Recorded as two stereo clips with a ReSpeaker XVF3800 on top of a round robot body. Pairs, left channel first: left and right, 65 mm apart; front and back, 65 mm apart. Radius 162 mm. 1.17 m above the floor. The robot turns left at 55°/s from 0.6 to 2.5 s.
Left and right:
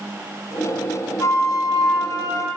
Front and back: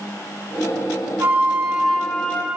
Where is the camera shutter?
I don't hear a camera shutter.